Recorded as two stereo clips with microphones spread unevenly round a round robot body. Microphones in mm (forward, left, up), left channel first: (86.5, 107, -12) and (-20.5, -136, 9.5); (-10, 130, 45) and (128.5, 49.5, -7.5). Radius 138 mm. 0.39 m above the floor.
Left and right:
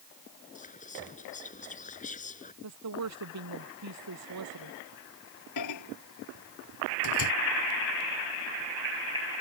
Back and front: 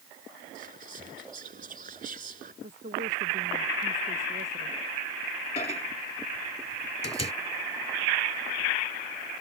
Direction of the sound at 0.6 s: 5° left.